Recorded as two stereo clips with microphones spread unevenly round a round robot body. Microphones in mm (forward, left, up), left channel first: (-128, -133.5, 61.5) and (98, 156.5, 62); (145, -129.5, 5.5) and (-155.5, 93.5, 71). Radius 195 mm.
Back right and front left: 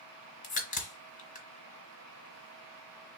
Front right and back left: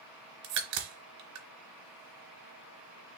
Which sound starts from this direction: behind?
A crack, at 0.4 s.